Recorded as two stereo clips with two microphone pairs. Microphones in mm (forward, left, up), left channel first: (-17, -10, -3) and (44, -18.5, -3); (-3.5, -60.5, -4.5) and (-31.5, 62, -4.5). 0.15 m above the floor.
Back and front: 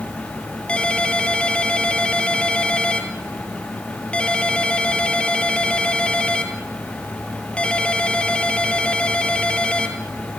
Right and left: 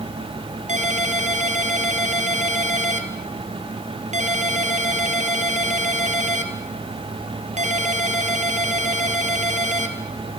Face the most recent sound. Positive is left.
turn(degrees=100)